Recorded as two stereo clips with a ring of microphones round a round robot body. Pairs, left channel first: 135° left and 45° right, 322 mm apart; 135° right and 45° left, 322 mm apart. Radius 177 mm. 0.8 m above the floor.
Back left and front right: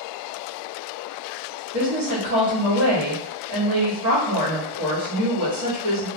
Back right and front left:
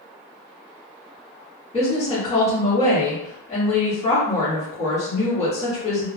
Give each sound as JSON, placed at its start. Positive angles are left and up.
{"t": 1.7, "sound": "a woman speaking", "azimuth_deg": -65, "distance_m": 1.3}